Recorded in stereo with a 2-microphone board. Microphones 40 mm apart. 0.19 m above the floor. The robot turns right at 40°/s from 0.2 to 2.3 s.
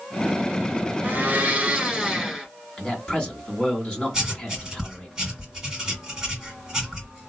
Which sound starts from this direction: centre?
Writing, at 4.1 s.